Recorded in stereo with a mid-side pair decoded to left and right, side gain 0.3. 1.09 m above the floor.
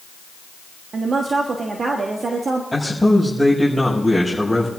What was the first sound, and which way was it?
A woman speaking, 60° right.